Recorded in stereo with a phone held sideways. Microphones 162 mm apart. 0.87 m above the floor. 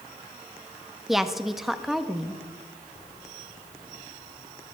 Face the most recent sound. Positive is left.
turn(degrees=0)  # may be behind; listen again after turning